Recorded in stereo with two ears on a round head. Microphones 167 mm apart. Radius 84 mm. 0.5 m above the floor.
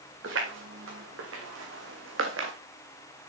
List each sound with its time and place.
0.2 s footsteps: 80° right, 4.5 m; by 2.5 s 75° right (ahead or behind), 1.9 m